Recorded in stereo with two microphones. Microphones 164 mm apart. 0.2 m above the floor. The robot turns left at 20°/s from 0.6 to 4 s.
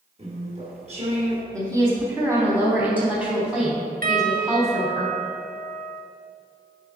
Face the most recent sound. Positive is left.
turn(degrees=-65)  # may be behind; listen again after turning